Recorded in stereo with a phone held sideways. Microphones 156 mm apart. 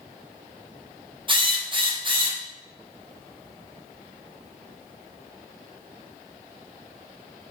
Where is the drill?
35° right (ahead or behind), 0.7 m.